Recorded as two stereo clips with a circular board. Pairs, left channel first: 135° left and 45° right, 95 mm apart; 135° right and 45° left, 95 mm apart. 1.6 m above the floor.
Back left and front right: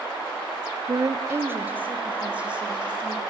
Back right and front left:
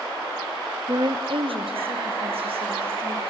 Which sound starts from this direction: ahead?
A woman speaking, at 0.9 s.